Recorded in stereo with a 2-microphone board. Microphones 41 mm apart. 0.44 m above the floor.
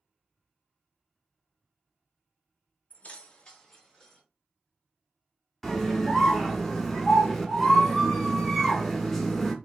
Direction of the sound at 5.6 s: 5° left (ahead or behind).